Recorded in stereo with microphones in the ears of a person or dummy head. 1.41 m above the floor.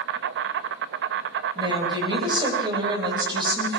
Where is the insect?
65° right (ahead or behind), 1.1 m.